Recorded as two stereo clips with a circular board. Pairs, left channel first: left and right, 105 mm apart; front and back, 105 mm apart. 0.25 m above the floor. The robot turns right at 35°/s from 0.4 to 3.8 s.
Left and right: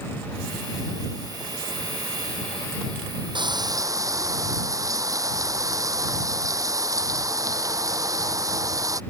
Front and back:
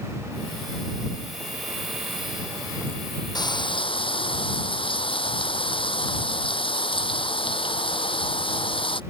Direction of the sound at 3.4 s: 50° right.